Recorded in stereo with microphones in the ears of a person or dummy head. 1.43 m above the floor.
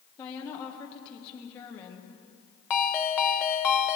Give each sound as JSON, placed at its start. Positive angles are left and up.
{"t": 0.2, "sound": "a woman speaking", "side_deg": 30, "distance_m": 1.1}
{"t": 2.7, "sound": "a ringtone", "side_deg": 15, "distance_m": 0.8}